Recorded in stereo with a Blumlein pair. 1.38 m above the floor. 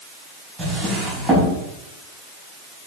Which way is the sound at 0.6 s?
15° right.